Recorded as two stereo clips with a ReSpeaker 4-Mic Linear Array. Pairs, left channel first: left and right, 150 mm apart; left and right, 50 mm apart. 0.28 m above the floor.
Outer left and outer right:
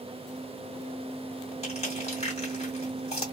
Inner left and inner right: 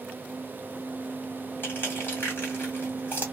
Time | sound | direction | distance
1.6 | crushing | 45° left (ahead or behind) | 2 m